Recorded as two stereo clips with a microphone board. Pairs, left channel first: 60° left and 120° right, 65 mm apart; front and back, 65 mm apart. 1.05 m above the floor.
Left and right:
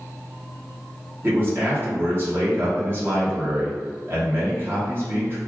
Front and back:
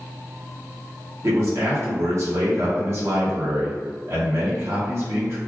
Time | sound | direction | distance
1.2 | a man speaking | 160° right | 1.1 m